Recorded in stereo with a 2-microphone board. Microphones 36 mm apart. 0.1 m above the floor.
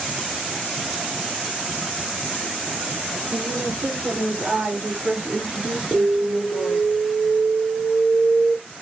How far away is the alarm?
About 1.1 m.